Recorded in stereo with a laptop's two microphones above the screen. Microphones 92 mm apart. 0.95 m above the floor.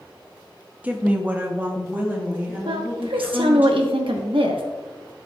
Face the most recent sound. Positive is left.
turn(degrees=-80)